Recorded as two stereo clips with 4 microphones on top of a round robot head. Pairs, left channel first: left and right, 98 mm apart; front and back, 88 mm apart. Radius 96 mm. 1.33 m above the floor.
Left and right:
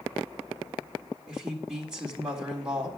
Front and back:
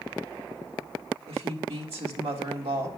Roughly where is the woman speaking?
Behind.